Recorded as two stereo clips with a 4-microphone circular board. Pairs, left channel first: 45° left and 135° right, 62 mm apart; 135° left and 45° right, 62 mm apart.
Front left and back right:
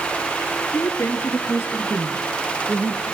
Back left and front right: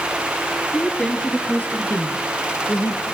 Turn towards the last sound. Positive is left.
turn(degrees=135)